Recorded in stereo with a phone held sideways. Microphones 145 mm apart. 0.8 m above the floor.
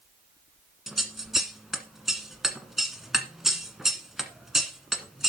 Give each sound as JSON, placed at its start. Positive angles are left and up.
{"t": 0.9, "sound": "scissors", "side_deg": 0, "distance_m": 1.5}